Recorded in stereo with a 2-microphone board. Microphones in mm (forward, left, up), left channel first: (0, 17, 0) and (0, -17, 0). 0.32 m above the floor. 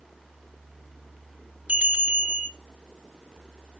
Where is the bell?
40° right (ahead or behind), 1.1 m.